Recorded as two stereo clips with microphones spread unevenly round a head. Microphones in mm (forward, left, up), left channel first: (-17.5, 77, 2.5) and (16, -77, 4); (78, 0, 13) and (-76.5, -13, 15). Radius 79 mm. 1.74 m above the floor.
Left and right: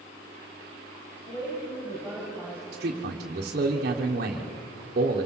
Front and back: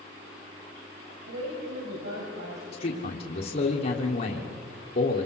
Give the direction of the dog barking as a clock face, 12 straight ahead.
No dog barking in this recording.